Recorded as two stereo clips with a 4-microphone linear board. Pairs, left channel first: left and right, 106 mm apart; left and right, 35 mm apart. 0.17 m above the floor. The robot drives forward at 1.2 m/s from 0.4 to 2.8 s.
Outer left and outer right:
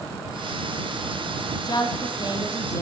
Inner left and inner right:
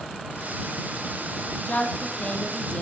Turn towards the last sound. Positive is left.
turn(degrees=30)  # may be behind; listen again after turning